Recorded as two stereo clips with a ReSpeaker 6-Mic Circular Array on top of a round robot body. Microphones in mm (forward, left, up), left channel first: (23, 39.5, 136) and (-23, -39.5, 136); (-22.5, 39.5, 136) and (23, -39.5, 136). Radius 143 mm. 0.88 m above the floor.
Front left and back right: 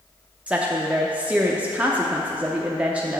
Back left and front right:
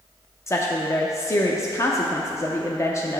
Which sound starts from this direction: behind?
A woman speaking, at 0.5 s.